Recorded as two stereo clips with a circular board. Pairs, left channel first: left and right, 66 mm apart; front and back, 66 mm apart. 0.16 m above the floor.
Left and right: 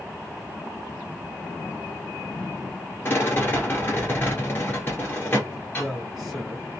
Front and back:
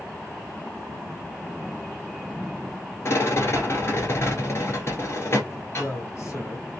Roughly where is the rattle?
Ahead left.